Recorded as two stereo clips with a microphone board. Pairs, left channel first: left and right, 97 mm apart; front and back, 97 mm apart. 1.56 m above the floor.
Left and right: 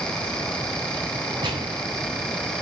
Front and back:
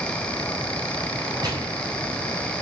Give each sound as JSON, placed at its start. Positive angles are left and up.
{"t": 1.4, "sound": "a gunshot", "azimuth_deg": -135, "distance_m": 7.5}